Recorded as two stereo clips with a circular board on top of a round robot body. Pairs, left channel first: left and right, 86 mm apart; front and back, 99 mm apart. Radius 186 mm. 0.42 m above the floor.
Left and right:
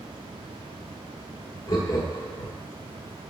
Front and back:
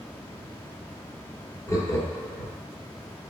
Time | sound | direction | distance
1.7 | laughter | 55° left | 1.7 m